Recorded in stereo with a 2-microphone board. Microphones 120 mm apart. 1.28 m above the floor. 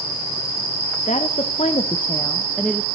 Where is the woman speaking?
80° left, 0.8 m; by 2.9 s centre (ahead or behind), 0.8 m.